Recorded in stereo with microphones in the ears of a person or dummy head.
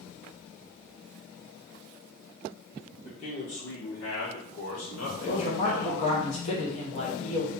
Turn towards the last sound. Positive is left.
turn(degrees=40)  # may be behind; listen again after turning